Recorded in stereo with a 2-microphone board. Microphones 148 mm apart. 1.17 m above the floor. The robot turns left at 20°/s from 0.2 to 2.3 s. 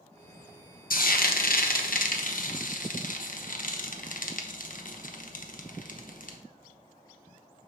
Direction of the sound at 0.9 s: 75° left (ahead or behind).